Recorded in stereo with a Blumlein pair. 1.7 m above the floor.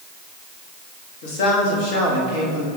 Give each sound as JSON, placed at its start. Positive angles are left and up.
{"t": 1.2, "sound": "a man speaking", "azimuth_deg": 45, "distance_m": 3.5}